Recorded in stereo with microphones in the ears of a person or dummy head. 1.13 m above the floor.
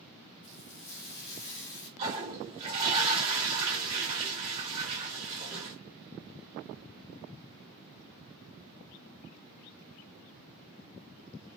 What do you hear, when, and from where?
0.4 s frying: 70° left (ahead or behind), 1.4 m
2.0 s a toilet flushing: 35° right (ahead or behind), 1.6 m